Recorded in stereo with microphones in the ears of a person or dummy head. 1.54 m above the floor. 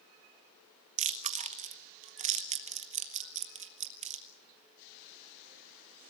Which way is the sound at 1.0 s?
35° right (ahead or behind).